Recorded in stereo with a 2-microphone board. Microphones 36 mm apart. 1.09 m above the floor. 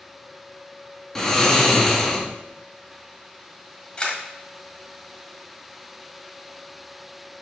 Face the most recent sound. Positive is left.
turn(degrees=25)  # may be behind; listen again after turning